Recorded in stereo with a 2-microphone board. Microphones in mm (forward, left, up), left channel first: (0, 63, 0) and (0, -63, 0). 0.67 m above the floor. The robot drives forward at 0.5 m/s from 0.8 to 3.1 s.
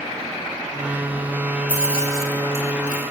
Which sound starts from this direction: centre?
Keys jangling, at 1.7 s.